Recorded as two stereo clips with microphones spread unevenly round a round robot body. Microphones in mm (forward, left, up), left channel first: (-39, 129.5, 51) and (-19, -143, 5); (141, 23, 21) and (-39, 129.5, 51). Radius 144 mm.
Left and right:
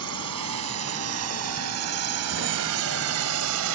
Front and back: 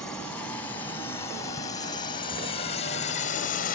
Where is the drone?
115° right; by 3.8 s 70° right.